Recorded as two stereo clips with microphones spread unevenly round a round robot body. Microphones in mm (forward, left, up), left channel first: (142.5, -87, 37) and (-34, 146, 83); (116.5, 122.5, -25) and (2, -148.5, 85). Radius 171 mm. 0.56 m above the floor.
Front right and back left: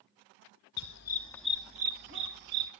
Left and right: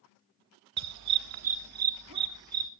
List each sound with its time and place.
0.8 s a dog barking: 100° right, 0.7 m; by 2.7 s 170° left, 1.3 m